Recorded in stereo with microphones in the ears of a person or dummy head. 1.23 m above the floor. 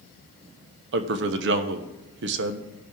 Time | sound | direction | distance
0.9 | a man speaking | 60° right (ahead or behind) | 1.0 m